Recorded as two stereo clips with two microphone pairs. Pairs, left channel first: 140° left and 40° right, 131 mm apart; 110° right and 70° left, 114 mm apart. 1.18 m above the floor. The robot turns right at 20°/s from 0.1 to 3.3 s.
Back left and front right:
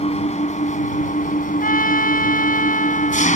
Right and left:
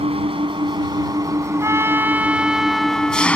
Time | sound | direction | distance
0.0 | an engine running | 105° left | ?
1.6 | a trumpet | 135° left | ?